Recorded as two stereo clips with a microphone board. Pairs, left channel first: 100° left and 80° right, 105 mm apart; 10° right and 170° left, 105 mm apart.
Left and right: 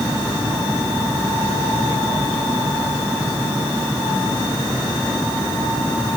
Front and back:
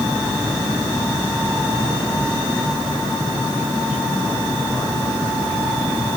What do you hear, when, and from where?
Only background noise.